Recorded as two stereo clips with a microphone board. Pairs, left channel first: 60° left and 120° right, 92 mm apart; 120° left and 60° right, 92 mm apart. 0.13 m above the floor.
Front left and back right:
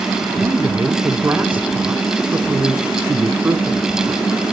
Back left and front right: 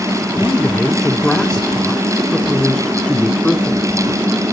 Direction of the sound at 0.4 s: 170° right.